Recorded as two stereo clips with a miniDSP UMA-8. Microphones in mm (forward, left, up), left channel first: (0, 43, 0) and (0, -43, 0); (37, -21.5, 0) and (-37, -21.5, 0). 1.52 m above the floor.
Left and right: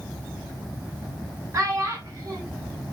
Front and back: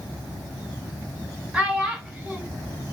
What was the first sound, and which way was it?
A child speaking, 115° right.